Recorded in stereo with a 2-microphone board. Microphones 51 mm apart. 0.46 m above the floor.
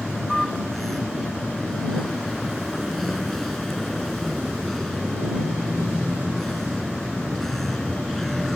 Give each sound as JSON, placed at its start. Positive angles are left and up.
{"t": 0.0, "sound": "a vehicle", "side_deg": 5}